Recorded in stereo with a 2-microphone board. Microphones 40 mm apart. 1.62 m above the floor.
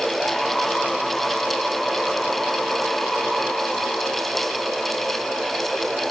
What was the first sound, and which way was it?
Only background noise.